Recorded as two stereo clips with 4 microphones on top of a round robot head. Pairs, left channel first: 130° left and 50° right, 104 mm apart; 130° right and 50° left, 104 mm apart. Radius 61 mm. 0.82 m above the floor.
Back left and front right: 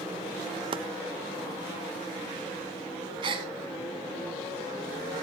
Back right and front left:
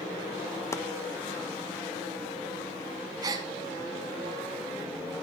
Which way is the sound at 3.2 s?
5° right.